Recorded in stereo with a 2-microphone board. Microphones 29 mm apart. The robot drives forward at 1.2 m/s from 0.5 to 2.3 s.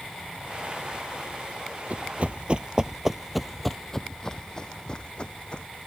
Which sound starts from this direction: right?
Running footsteps, at 1.9 s.